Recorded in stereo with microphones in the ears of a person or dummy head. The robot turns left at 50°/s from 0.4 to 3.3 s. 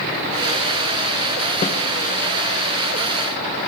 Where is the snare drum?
35° left (ahead or behind), 1.0 m; by 1.8 s 30° left (ahead or behind), 1.0 m.